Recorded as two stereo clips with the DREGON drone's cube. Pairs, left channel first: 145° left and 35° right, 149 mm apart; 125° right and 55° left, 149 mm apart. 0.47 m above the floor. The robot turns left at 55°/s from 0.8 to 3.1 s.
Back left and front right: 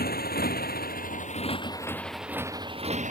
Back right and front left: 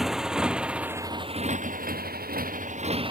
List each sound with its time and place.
0.0 s a motorcycle: 145° left; by 3.1 s straight ahead